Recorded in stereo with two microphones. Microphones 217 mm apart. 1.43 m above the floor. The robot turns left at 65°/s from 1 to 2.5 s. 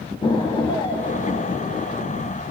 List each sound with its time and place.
0.2 s an explosion: 150° left, 1.0 m; by 2.4 s 55° left, 1.0 m